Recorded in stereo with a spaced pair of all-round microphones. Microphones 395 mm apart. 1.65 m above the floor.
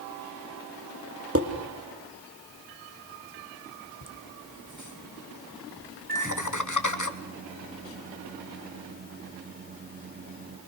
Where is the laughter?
50° left (ahead or behind), 2.0 m.